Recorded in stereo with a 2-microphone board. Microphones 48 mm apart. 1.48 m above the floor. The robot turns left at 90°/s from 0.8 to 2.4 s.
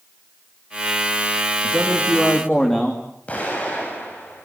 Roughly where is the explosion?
Left.